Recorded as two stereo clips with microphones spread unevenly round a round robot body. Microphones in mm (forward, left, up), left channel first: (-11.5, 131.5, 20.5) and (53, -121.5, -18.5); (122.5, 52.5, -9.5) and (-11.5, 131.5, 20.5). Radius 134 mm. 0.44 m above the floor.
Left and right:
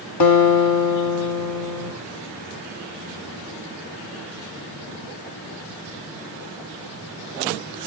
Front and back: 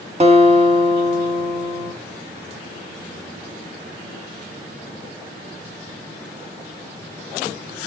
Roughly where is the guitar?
Left.